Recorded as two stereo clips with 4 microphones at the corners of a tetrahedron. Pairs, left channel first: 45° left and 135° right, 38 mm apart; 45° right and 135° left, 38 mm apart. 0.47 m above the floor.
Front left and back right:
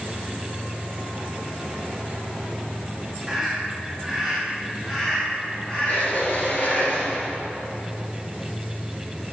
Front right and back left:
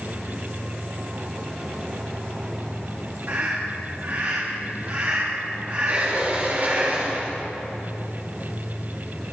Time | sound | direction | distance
3.3 | a scream | 145° left | 4.5 m
5.9 | a sliding door | 95° left | 4 m